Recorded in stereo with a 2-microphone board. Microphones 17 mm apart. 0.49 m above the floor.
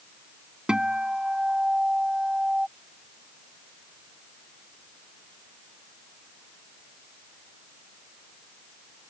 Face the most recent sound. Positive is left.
turn(degrees=-65)  # may be behind; listen again after turning